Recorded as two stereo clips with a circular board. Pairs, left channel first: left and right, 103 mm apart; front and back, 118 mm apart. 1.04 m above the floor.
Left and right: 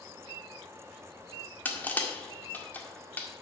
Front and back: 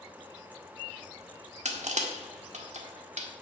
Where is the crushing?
160° left, 1.7 m.